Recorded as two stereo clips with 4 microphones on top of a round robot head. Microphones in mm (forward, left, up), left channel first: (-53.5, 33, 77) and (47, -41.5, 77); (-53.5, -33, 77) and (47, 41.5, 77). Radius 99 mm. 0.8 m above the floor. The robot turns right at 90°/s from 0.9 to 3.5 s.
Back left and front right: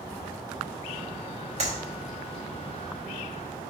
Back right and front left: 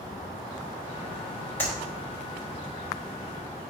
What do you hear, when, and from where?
1.6 s a clap: 70° right, 3.5 m; by 1.8 s 55° right, 3.5 m